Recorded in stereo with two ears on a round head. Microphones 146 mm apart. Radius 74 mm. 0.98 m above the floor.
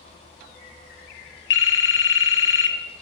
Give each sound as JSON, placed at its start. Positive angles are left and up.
{"t": 1.5, "sound": "a phone ringing", "side_deg": 85, "distance_m": 0.7}